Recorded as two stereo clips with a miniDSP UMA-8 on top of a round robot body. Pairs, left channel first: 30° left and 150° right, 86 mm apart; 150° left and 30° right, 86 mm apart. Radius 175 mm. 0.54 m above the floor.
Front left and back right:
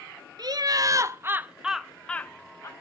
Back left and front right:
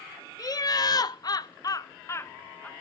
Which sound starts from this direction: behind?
Laughter, at 0.4 s.